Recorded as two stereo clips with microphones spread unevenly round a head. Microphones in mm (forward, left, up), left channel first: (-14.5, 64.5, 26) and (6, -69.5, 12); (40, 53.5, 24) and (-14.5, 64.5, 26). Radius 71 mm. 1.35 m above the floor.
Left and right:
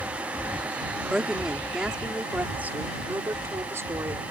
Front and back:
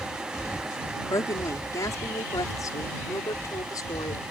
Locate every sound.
1.1 s a woman speaking: 10° left; by 4.2 s 10° right